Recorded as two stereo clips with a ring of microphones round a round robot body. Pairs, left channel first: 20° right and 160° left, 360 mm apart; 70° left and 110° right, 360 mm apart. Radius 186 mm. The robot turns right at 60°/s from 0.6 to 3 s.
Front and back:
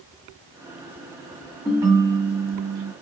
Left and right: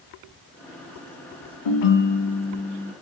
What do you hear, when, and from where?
1.6 s a ringtone: 65° left, 0.9 m; by 2.9 s 140° left, 0.9 m